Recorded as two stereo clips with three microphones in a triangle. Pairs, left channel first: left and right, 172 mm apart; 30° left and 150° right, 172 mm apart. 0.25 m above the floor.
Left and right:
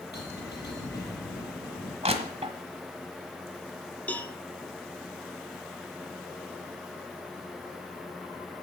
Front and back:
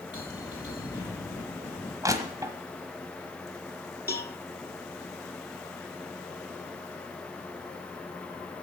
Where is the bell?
95° left, 6.5 m.